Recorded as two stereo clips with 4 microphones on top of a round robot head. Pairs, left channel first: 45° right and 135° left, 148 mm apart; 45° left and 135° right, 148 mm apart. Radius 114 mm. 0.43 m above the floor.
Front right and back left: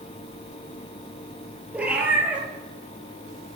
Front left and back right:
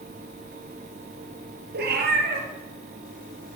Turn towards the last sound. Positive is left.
turn(degrees=-145)